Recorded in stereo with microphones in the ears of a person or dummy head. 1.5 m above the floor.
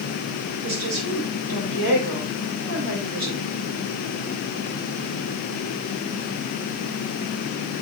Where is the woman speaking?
80° right, 6 m.